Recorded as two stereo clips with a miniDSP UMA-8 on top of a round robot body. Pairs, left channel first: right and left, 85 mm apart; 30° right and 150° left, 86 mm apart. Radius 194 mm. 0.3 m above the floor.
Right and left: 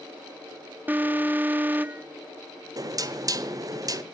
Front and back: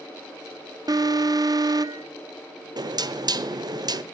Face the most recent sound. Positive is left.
turn(degrees=125)